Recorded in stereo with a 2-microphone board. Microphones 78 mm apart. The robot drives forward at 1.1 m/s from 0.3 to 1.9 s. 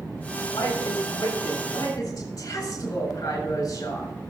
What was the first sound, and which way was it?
A woman speaking, 55° left (ahead or behind).